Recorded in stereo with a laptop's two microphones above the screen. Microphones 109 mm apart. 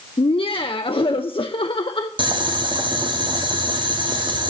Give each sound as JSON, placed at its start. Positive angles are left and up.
{"t": 0.2, "sound": "laughter", "side_deg": 55, "distance_m": 0.6}
{"t": 2.2, "sound": "boiling", "side_deg": -45, "distance_m": 0.9}